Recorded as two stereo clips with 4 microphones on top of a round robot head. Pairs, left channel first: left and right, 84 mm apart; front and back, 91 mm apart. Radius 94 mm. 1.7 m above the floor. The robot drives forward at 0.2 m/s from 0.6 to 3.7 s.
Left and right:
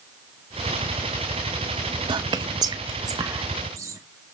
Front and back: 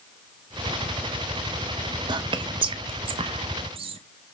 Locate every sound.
2.1 s whispering: 135° right, 0.5 m; by 4.0 s 150° right, 0.8 m